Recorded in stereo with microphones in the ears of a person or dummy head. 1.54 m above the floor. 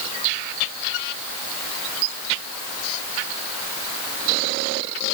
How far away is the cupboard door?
I don't hear a cupboard door.